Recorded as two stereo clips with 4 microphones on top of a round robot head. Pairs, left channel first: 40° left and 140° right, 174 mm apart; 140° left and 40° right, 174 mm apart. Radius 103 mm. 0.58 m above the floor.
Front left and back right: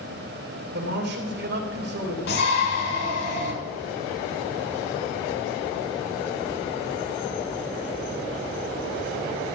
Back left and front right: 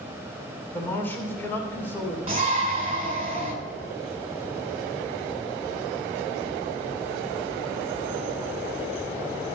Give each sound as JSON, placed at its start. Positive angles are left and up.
{"t": 0.7, "sound": "a man speaking", "azimuth_deg": -140, "distance_m": 2.5}
{"t": 2.3, "sound": "a shout", "azimuth_deg": 20, "distance_m": 5.0}